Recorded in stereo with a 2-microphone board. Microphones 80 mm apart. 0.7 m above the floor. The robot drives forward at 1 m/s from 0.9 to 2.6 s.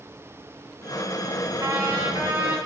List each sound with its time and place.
1.6 s a trumpet: 40° right (ahead or behind), 0.8 m; by 2.6 s 20° right (ahead or behind), 1.7 m